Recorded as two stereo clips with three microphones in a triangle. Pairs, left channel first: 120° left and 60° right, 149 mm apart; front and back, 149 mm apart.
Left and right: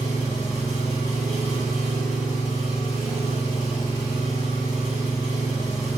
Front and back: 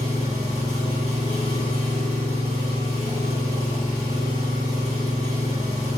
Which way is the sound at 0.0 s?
140° left.